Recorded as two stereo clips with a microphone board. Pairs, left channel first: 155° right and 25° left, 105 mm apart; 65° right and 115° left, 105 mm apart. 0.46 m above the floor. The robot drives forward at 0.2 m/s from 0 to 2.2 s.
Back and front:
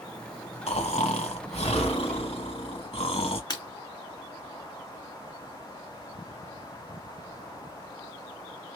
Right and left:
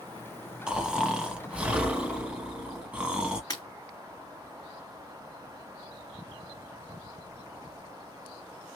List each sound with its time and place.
0.7 s snoring: 165° right, 0.8 m; by 3.4 s 170° right, 1.1 m
3.5 s breaking glass: 115° right, 2 m